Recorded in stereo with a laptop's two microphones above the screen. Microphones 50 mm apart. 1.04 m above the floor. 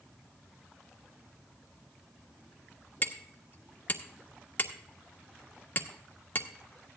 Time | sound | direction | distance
3.0 | hammering | 40° left (ahead or behind) | 1.4 m